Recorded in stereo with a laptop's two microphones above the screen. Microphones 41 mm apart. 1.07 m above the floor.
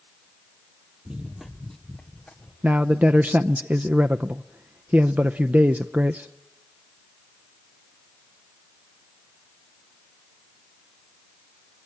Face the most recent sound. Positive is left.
turn(degrees=-40)  # may be behind; listen again after turning